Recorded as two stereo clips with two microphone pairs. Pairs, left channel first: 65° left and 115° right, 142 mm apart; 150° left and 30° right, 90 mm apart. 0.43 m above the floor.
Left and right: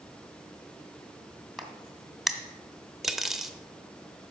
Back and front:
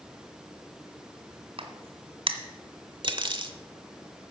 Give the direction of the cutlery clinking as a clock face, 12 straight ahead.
1 o'clock.